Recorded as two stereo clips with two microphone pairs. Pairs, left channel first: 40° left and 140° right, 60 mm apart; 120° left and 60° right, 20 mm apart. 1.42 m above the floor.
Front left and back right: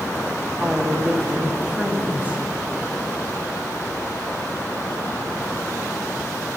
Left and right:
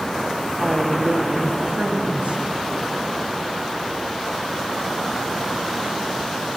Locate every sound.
0.6 s a woman speaking: 65° right, 1.1 m